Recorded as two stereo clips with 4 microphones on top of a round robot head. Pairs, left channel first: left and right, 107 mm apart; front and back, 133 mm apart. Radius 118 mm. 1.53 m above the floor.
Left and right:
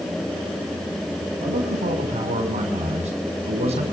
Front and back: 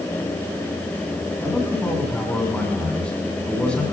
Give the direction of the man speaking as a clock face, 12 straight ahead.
3 o'clock.